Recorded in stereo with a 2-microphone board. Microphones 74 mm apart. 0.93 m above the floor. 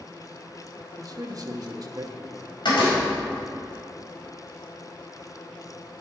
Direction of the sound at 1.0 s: 50° right (ahead or behind).